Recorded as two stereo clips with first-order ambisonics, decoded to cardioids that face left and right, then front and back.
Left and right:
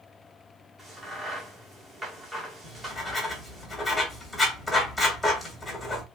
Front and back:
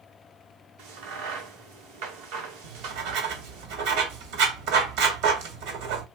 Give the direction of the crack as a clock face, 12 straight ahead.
6 o'clock.